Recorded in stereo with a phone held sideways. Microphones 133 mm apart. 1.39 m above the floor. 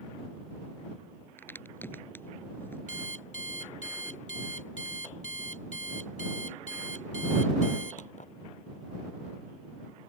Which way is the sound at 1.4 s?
15° left (ahead or behind).